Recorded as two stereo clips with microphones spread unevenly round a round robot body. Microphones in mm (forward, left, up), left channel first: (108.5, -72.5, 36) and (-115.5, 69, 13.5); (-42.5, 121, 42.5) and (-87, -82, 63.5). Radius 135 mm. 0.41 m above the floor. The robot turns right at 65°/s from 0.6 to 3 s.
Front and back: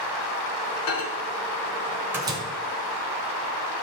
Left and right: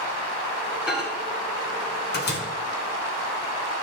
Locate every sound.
0.9 s a microwave: 15° right, 1.7 m; by 2.4 s 85° left, 1.7 m